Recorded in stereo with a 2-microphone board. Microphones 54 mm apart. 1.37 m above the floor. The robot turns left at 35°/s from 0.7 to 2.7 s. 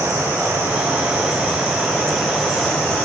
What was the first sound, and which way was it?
Running water, 120° right.